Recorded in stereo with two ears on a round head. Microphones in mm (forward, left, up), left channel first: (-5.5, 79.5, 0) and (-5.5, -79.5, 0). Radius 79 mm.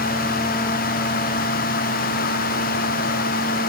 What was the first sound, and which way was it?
Only background noise.